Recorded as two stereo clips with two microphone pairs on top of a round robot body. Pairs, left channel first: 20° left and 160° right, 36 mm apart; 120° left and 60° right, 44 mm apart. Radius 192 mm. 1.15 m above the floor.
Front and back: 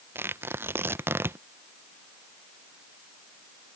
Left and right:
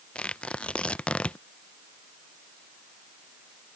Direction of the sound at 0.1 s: 175° right.